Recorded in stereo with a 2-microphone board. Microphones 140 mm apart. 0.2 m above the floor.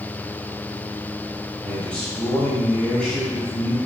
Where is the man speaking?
5° left (ahead or behind), 1.3 m.